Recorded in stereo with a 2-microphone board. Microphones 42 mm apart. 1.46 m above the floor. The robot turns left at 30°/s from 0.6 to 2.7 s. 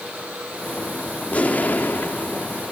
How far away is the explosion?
About 1.4 m.